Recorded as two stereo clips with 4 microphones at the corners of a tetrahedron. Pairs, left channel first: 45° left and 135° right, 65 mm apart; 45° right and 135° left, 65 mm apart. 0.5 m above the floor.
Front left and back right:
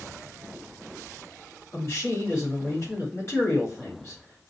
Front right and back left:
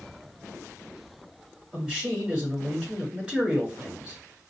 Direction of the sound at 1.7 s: 70° left.